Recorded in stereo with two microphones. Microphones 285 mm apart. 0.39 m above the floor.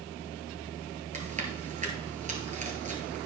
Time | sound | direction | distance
1.1 | chewing | 25° right (ahead or behind) | 1.4 m